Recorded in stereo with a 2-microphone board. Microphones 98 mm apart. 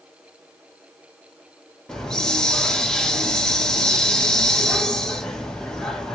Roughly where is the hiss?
Centre.